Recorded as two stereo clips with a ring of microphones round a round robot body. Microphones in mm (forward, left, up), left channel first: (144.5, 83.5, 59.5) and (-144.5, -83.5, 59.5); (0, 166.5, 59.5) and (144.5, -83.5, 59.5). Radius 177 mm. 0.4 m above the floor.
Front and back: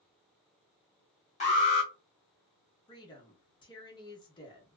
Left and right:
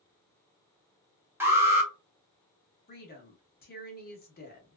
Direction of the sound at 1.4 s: 10° left.